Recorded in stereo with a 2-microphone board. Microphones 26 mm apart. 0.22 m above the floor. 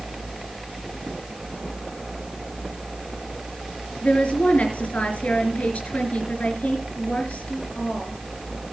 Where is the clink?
I don't hear a clink.